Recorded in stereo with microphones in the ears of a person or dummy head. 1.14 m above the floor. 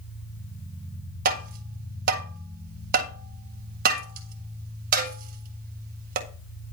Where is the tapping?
60° right (ahead or behind), 1.5 m.